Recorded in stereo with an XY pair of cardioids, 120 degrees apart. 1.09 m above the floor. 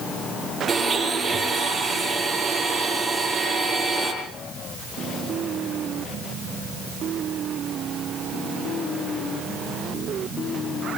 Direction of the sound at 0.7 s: 15° right.